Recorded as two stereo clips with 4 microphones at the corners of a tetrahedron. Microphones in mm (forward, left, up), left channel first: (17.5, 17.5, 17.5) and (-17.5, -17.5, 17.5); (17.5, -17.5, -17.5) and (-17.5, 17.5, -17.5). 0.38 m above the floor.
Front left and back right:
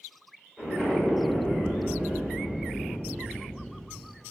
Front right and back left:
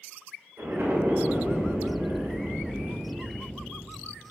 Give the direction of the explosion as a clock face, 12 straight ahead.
8 o'clock.